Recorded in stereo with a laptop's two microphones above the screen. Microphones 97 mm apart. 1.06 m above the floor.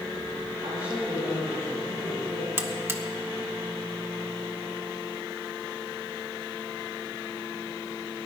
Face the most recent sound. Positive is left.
turn(degrees=-25)  # may be behind; listen again after turning